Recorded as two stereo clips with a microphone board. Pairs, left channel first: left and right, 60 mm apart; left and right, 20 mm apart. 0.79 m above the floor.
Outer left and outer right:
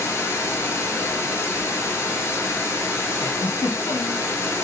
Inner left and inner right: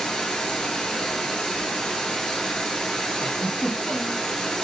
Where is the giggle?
70° left (ahead or behind), 0.7 m.